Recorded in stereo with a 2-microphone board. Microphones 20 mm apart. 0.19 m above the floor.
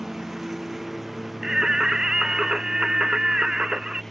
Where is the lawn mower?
15° right (ahead or behind); by 4.1 s 15° left (ahead or behind).